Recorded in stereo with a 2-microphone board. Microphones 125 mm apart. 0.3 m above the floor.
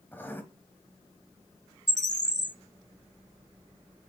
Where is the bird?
75° left (ahead or behind), 0.7 m.